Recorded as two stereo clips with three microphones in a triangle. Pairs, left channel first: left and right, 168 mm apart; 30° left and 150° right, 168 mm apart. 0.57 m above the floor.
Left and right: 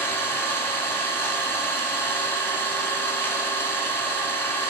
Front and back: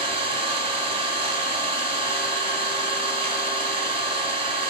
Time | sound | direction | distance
0.0 | an engine running | 165° left | 1.2 m